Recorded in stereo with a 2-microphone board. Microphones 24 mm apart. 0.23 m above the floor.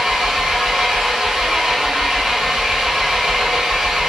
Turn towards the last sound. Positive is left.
turn(degrees=-25)  # may be behind; listen again after turning